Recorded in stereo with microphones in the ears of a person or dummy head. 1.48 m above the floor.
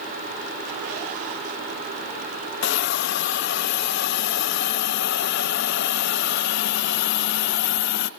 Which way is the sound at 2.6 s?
60° left (ahead or behind).